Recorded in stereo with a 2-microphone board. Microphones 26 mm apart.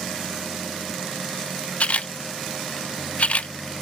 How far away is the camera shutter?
About 0.7 m.